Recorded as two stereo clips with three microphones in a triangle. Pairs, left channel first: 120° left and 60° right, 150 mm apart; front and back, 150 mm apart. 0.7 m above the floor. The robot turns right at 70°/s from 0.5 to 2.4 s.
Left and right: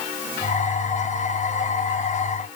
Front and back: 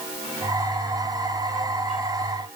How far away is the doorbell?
I don't hear a doorbell.